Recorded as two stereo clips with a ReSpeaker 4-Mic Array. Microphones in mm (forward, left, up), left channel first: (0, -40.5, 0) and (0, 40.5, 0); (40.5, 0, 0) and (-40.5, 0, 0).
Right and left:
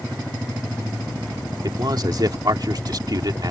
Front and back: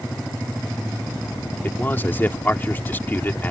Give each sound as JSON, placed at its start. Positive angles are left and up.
{"t": 1.6, "sound": "a man speaking", "azimuth_deg": 65}